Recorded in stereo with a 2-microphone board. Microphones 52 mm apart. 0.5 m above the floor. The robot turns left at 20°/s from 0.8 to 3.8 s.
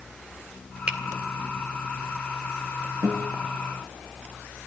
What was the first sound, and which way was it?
A finger snap, 25° right (ahead or behind).